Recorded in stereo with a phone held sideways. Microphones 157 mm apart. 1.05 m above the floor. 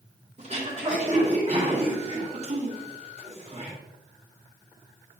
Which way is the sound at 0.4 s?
45° right (ahead or behind).